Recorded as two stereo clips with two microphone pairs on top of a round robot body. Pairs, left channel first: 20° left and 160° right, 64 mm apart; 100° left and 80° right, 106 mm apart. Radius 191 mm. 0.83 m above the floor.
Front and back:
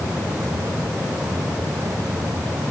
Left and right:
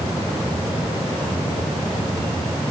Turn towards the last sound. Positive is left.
No sound to turn to.